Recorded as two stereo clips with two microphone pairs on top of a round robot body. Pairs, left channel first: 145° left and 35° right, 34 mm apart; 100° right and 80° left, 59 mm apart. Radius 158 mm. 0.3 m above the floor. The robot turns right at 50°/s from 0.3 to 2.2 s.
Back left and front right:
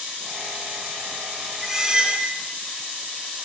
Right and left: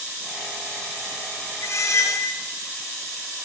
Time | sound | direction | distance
1.6 | a squeak | 115° right | 1.0 m